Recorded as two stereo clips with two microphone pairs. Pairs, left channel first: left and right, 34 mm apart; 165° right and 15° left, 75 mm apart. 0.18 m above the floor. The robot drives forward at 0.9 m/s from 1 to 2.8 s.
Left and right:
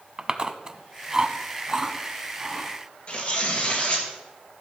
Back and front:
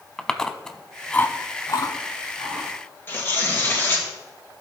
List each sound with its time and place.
0.2 s chewing: 90° right, 0.6 m; by 2.7 s 170° right, 1.6 m
3.1 s tearing paper: 140° left, 2.5 m